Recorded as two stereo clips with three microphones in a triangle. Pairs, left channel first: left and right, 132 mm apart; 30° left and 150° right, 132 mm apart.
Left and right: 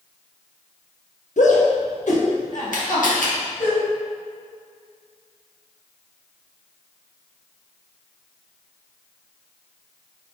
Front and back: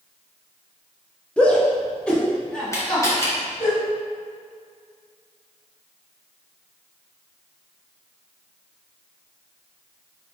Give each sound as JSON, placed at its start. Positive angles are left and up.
{"t": 1.4, "sound": "a shout", "azimuth_deg": 110, "distance_m": 1.2}
{"t": 2.7, "sound": "a camera shutter", "azimuth_deg": 100, "distance_m": 1.8}